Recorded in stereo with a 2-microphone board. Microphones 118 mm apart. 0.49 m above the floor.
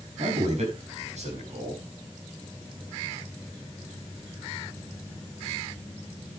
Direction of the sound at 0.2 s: 75° right (ahead or behind).